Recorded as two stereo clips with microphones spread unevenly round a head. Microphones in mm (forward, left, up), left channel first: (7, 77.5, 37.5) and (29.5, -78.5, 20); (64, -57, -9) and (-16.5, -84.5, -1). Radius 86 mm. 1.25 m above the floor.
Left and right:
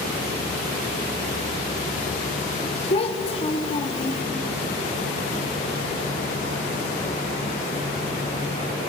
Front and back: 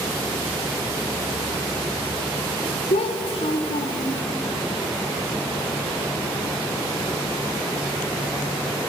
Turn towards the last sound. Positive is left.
turn(degrees=45)